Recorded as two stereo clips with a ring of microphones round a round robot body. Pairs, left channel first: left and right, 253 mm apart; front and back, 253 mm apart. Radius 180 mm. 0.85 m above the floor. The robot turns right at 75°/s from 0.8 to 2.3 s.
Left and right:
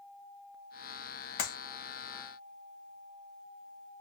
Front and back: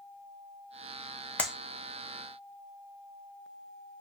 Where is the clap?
85° left, 0.9 m; by 1.6 s 95° left, 0.9 m.